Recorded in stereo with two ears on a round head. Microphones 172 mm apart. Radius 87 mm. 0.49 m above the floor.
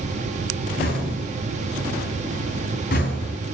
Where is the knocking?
50° left (ahead or behind), 4 m.